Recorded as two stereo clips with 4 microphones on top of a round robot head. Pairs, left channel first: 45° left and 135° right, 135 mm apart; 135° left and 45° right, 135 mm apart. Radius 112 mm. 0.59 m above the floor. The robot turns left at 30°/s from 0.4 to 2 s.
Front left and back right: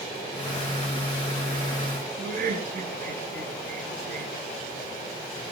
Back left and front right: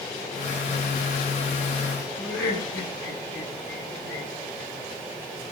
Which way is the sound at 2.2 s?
145° right.